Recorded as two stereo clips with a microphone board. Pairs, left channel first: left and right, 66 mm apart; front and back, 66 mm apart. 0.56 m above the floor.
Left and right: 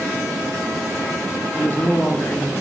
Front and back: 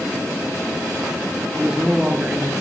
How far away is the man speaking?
About 0.7 m.